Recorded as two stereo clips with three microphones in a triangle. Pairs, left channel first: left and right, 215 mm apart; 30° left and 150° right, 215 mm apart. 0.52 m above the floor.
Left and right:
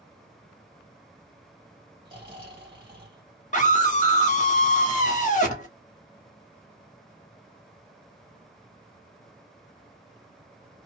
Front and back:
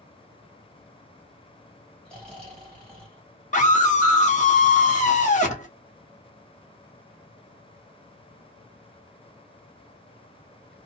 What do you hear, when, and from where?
2.0 s snoring: 50° right, 1.5 m
3.5 s a scream: 60° left, 1.1 m